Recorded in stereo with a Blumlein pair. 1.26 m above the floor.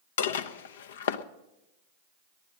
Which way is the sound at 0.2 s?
60° left.